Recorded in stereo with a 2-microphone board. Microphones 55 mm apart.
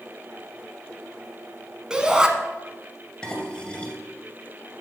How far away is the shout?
About 1.1 m.